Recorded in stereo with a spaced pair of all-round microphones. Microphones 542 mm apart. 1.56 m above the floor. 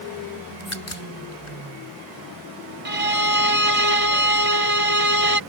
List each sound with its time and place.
0.6 s a crack: 65° left (ahead or behind)
2.9 s a violin: 80° right